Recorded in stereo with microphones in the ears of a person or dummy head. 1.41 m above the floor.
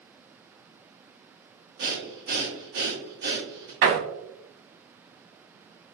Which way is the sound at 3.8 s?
80° right.